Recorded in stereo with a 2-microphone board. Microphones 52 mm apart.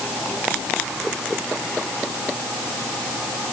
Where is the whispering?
I don't hear whispering.